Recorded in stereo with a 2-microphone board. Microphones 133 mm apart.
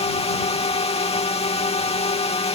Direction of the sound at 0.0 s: 50° left (ahead or behind).